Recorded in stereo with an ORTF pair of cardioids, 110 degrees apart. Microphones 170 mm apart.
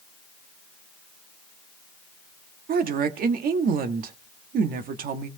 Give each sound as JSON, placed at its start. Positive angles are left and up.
{"t": 2.7, "sound": "a woman speaking", "azimuth_deg": -60, "distance_m": 1.7}